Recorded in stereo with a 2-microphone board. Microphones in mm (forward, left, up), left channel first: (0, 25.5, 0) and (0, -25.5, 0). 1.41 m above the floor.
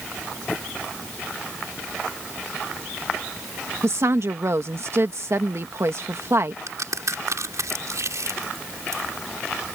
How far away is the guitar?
I don't hear a guitar.